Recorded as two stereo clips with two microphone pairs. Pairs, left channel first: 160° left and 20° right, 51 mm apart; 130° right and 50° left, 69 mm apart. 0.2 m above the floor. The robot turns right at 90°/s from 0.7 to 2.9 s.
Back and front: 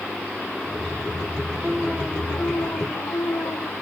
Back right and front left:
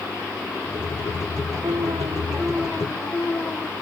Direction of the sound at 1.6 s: 50° left.